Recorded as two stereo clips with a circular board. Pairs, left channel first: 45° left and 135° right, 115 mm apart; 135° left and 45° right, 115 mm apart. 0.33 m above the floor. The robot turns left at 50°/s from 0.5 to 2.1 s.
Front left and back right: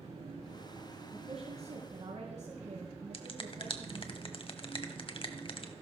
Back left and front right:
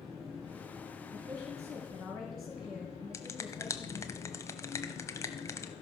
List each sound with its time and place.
0.0 s an engine running: 135° right, 8 m; by 5.8 s 145° left, 8 m
1.1 s a woman speaking: 90° right, 3.5 m; by 4.1 s 140° right, 3.5 m
3.1 s a finger snap: 75° left, 1.2 m